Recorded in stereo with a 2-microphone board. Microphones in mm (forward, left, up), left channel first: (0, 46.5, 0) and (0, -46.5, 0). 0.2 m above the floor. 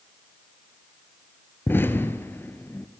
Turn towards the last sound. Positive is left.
turn(degrees=25)  # may be behind; listen again after turning